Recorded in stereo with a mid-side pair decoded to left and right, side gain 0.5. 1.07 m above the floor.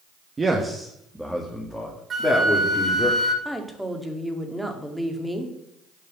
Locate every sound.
0.4 s a man speaking: 25° right, 1.4 m; by 3.1 s 25° left, 3 m
2.1 s a flute: 35° right, 1.7 m
3.5 s a woman speaking: 5° right, 2 m